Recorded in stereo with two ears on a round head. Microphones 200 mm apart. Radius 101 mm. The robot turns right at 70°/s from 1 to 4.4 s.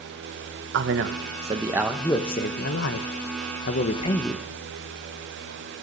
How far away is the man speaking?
About 0.8 m.